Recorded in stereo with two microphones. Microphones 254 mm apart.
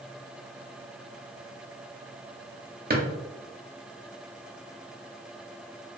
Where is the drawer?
35° right (ahead or behind), 0.5 m.